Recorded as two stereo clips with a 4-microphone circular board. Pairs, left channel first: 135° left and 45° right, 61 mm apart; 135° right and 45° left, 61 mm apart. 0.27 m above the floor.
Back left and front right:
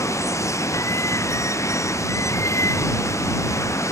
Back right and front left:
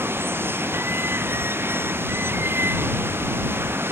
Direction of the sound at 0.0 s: 95° left.